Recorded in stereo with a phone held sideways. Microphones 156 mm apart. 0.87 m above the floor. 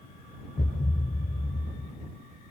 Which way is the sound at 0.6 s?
70° left (ahead or behind).